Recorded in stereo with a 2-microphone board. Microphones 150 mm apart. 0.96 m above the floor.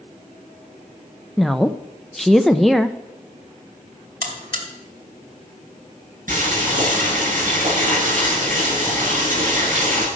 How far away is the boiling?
About 9 m.